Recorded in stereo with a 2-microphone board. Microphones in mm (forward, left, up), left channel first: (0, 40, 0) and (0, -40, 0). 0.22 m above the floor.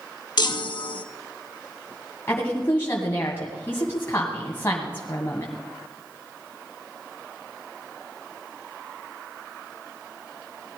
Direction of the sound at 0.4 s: 65° left (ahead or behind).